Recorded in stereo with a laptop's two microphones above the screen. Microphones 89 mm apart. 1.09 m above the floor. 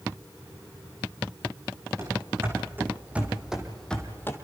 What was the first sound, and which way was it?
Running footsteps, 30° right (ahead or behind).